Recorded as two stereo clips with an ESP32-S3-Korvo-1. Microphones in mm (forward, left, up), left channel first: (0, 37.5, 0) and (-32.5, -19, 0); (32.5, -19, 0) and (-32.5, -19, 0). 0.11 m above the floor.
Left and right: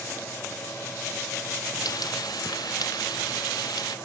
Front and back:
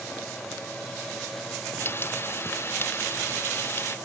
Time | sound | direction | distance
1.8 | frying | 55° left | ?